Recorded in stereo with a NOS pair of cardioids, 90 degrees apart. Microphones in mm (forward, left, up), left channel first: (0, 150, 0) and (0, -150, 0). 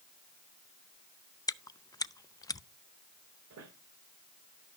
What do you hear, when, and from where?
1.5 s chewing: 10° left, 0.6 m
3.5 s a squeak: 55° right, 3.5 m